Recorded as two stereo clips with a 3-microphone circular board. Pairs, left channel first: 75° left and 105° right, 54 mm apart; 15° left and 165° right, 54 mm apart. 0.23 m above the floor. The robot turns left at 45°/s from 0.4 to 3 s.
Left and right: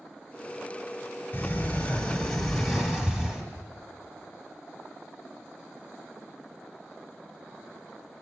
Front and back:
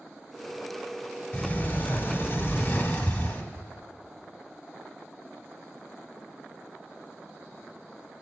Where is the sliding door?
50° left, 1.1 m; by 3.5 s 25° right, 1.1 m.